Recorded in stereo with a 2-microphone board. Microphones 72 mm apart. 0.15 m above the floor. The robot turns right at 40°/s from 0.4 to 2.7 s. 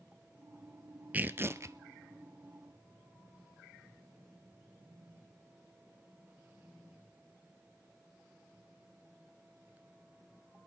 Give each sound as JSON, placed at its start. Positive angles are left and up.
{"t": 1.1, "sound": "tearing paper", "side_deg": -20, "distance_m": 0.8}